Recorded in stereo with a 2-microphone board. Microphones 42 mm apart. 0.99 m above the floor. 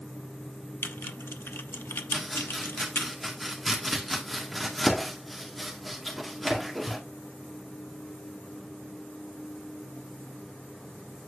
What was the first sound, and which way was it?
Typing on a keyboard, 70° left (ahead or behind).